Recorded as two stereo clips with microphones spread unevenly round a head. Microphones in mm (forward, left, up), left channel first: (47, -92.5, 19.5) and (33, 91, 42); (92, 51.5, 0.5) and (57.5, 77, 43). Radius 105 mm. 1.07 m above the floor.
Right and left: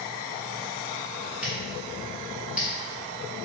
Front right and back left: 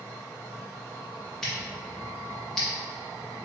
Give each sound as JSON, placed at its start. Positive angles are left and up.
{"t": 1.4, "sound": "scissors", "azimuth_deg": 165, "distance_m": 0.6}